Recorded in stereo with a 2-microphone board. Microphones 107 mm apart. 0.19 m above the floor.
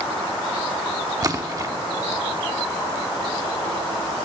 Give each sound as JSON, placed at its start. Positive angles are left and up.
{"t": 1.2, "sound": "a splash", "side_deg": -35, "distance_m": 0.9}